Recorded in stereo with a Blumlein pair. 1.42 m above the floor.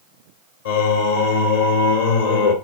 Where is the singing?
60° left, 1.8 m.